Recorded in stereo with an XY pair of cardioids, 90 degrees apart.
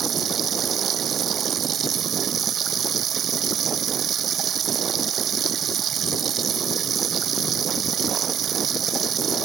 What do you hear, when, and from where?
0.0 s running water: 65° right